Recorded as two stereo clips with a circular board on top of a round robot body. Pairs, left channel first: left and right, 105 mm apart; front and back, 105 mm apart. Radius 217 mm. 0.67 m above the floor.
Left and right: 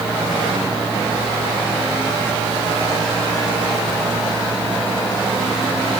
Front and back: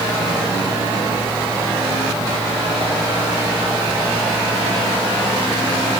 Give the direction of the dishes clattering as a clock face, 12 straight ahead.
I don't hear dishes clattering.